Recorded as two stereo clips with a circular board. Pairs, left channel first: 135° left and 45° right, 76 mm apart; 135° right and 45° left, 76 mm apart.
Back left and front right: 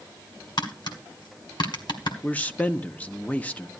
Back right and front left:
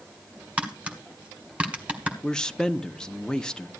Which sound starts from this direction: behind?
A man speaking, at 2.2 s.